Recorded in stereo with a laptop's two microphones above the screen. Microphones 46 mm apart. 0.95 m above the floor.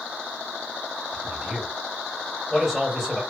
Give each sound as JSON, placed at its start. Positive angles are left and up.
{"t": 1.1, "sound": "a man speaking", "side_deg": -10, "distance_m": 2.0}